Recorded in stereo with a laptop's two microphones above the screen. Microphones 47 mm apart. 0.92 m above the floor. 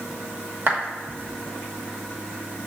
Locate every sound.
0.7 s a clap: 50° right (ahead or behind), 1.1 m